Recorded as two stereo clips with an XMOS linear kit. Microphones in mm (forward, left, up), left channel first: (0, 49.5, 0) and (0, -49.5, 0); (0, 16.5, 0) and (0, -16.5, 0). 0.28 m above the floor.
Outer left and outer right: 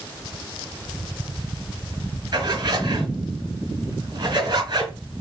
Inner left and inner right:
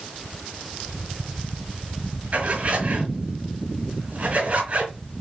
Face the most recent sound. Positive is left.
turn(degrees=-55)  # may be behind; listen again after turning